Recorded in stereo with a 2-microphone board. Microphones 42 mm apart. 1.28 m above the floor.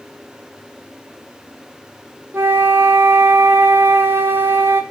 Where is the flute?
65° right (ahead or behind), 1.2 m.